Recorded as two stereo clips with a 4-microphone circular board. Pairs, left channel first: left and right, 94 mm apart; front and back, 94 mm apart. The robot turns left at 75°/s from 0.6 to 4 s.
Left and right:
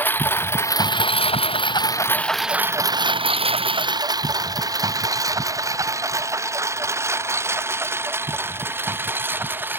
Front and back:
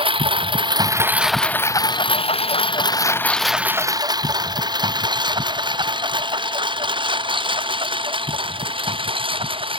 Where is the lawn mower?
160° left; by 9.8 s 160° right.